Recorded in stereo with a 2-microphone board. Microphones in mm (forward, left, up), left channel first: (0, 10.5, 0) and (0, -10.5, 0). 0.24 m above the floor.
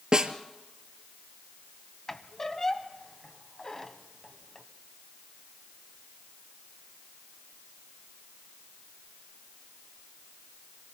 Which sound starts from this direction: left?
A squeak, at 2.1 s.